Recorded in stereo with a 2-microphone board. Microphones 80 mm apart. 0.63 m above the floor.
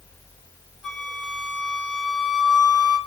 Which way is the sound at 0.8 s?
Centre (ahead or behind).